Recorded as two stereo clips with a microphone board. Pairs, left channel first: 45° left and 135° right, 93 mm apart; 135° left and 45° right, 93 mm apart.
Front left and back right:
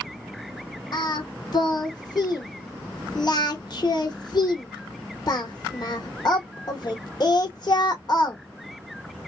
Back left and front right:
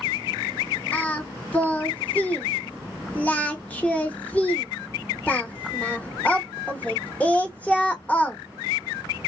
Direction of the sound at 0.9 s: 65° left.